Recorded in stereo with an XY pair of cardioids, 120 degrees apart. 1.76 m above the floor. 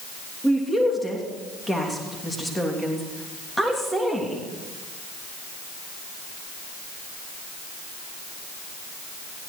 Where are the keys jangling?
I don't hear keys jangling.